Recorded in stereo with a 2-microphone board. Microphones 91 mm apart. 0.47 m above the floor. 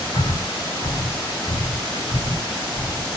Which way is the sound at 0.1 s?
60° left (ahead or behind).